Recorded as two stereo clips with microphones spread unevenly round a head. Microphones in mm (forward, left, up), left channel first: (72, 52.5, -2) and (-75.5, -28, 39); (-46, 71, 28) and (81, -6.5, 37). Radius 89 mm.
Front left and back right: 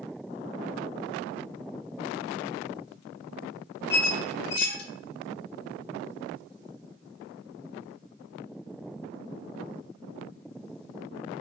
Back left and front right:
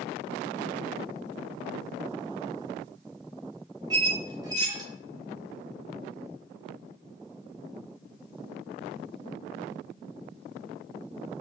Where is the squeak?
15° left, 0.6 m.